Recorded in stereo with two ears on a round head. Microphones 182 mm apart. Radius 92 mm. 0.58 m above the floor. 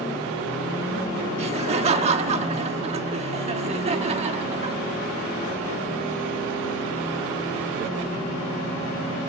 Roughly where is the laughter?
Right.